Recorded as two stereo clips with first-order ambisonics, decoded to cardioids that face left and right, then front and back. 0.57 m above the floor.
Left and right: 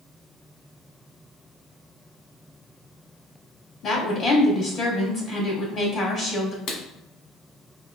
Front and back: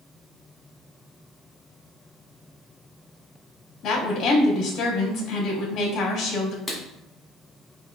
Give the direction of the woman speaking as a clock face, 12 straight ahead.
11 o'clock.